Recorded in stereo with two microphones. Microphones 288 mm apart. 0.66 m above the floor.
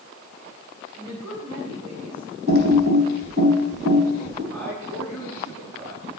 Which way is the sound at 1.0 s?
60° right (ahead or behind).